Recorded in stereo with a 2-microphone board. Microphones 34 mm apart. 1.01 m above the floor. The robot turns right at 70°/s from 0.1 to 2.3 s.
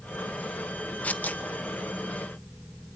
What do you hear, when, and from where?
1.0 s tearing paper: 50° left (ahead or behind), 1.2 m; by 1.4 s 55° left (ahead or behind), 1.2 m